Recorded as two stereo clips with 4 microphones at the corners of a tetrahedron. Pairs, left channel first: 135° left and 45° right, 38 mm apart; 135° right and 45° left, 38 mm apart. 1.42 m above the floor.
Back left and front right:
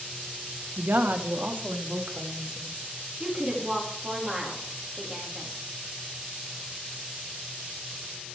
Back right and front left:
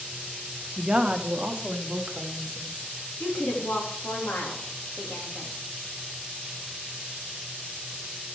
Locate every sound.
0.8 s a woman speaking: 30° right, 1.1 m; by 2.9 s 10° right, 2.5 m
3.2 s a woman speaking: 105° right, 3 m